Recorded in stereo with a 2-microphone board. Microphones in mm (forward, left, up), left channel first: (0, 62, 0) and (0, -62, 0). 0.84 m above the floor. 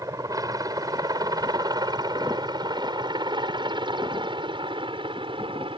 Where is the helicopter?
30° right (ahead or behind); by 5.8 s 45° right (ahead or behind).